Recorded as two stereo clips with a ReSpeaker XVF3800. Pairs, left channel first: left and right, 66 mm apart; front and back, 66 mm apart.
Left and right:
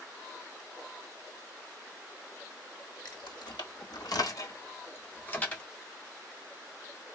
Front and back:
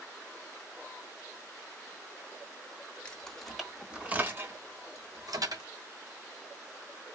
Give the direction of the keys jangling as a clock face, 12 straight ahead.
10 o'clock.